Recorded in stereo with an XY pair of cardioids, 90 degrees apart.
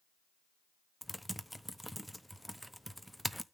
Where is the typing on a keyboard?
Straight ahead, 0.7 m.